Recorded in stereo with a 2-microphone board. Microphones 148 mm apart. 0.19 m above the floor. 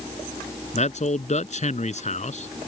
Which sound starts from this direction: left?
A man speaking, at 0.7 s.